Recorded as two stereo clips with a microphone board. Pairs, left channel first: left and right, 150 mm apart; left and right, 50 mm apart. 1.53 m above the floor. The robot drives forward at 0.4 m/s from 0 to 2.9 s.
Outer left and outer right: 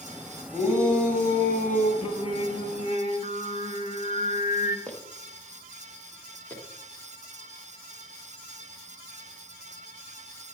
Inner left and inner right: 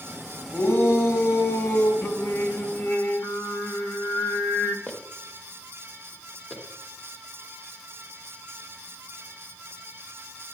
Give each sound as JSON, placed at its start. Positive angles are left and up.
{"t": 0.5, "sound": "a shout", "side_deg": 55, "distance_m": 5.5}
{"t": 2.0, "sound": "singing", "side_deg": 50, "distance_m": 1.3}
{"t": 4.9, "sound": "footsteps", "side_deg": 10, "distance_m": 2.0}